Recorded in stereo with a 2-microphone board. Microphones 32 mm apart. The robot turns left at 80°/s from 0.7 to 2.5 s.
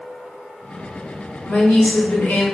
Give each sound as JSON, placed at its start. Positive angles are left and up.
{"t": 1.5, "sound": "a woman speaking", "azimuth_deg": 150, "distance_m": 0.9}